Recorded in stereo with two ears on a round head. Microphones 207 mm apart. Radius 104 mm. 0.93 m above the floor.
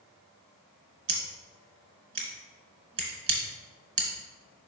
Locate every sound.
1.1 s scissors: 35° right (ahead or behind), 1.9 m